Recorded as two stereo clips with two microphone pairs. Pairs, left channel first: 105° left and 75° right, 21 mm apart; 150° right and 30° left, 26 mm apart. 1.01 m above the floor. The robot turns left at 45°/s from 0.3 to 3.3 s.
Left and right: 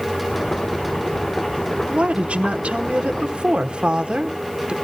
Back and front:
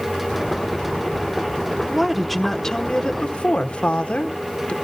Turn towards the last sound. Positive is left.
turn(degrees=-110)